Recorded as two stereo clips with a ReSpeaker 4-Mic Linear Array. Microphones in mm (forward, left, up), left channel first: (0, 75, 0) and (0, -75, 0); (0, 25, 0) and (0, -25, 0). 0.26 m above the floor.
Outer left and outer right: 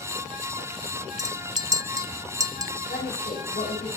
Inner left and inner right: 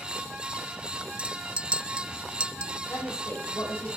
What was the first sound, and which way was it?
A clink, 20° right (ahead or behind).